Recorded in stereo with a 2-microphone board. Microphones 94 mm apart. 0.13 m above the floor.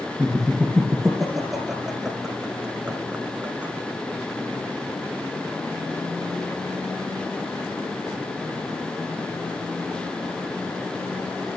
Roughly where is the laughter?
Centre.